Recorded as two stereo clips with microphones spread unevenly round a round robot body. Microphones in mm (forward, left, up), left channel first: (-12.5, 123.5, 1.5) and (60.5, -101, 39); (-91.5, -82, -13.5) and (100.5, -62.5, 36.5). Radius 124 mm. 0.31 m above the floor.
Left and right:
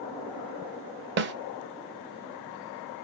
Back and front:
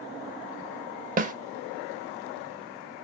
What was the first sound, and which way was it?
A snare drum, 45° right.